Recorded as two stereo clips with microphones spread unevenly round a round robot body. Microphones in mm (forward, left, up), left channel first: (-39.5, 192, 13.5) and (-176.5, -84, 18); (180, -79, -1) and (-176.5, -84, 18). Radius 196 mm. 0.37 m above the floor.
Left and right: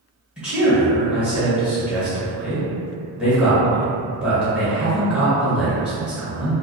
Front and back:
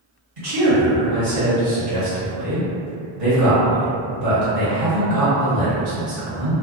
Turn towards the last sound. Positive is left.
turn(degrees=160)